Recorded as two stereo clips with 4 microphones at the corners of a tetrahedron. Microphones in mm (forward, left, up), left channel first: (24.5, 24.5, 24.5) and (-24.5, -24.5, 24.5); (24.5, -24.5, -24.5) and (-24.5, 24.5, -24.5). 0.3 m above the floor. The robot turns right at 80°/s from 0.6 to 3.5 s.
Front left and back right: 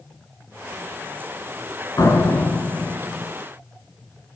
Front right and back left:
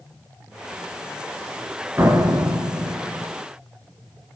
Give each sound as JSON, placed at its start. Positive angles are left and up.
{"t": 2.0, "sound": "a door slam", "azimuth_deg": 80, "distance_m": 3.5}